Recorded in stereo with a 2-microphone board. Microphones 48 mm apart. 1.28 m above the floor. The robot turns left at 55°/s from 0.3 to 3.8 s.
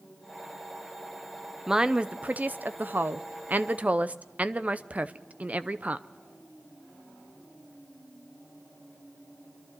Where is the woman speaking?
15° right, 0.6 m; by 6.1 s 135° right, 0.6 m.